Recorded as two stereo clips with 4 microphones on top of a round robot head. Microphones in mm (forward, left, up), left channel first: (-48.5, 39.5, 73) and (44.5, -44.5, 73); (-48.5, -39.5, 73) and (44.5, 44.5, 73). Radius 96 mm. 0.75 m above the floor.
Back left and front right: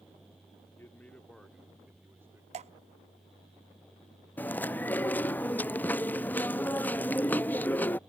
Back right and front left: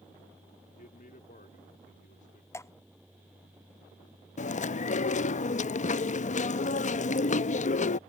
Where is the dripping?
70° right.